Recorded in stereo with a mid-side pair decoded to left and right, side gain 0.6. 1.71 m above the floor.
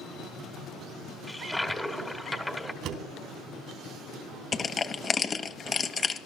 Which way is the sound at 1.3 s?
5° left.